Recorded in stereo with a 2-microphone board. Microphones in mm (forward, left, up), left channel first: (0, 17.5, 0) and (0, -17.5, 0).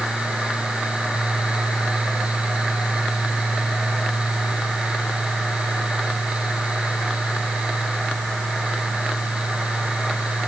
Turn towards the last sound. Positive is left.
No sound to turn to.